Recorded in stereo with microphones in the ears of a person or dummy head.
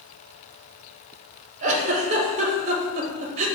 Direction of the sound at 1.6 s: 35° right (ahead or behind).